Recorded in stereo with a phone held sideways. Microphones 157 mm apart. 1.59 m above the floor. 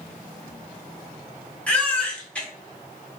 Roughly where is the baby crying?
Centre.